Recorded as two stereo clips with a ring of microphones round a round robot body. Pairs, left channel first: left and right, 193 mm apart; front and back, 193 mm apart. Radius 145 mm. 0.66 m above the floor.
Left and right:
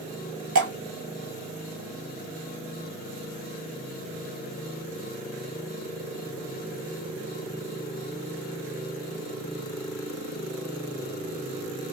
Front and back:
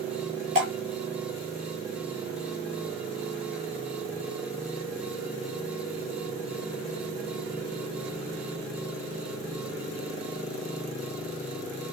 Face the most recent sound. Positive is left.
turn(degrees=-115)